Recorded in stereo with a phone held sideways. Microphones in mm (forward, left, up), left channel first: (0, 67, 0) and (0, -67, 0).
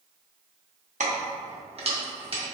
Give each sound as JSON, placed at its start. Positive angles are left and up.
{"t": 1.0, "sound": "keys jangling", "side_deg": -65, "distance_m": 0.7}